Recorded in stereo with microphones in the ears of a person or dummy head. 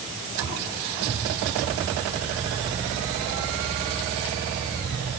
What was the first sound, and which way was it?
Only background noise.